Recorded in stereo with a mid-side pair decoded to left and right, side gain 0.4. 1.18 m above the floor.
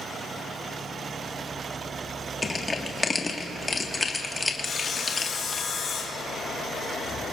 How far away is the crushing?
About 1.6 m.